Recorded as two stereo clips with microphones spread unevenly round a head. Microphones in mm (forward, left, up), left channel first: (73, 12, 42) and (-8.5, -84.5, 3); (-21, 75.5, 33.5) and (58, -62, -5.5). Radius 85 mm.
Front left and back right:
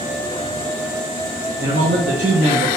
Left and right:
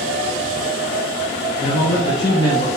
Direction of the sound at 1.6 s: 175° right.